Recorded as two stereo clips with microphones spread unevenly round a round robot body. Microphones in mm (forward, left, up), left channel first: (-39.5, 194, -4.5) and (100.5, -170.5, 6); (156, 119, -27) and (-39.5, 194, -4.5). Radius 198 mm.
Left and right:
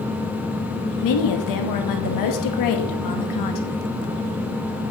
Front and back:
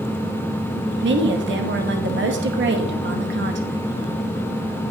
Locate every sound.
1.0 s a woman speaking: 140° left, 1.1 m